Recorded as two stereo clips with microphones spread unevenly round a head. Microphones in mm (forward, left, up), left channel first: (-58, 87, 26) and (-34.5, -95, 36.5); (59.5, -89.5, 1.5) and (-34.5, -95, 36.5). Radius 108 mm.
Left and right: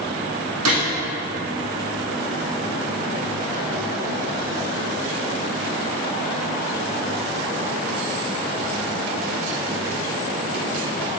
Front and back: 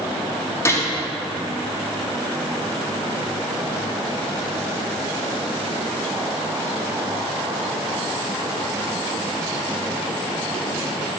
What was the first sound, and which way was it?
A gunshot, 65° right.